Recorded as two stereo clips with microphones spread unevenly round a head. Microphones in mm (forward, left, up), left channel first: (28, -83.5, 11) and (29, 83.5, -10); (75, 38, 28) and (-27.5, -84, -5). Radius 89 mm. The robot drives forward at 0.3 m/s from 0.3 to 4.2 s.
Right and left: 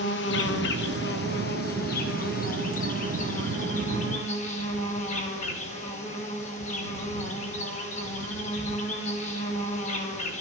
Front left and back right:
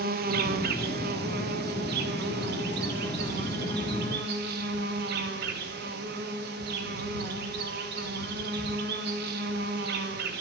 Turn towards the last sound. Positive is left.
turn(degrees=-145)